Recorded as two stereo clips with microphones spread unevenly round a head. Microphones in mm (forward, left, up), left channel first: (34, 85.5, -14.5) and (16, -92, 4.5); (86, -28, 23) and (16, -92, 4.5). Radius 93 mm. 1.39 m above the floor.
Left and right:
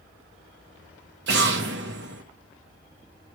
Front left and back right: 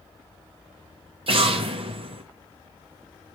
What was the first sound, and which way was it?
An explosion, 115° right.